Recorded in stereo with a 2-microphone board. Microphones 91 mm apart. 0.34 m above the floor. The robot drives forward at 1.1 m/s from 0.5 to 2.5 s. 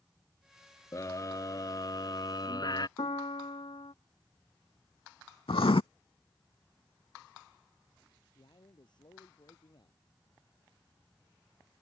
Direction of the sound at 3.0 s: 85° left.